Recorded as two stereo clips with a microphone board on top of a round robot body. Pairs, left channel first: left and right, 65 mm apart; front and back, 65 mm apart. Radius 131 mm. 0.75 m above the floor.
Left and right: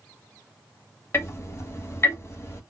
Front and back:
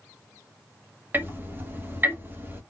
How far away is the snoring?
I don't hear snoring.